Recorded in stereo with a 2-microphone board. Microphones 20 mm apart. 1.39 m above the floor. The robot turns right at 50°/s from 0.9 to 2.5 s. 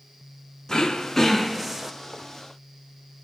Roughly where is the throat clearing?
Behind left.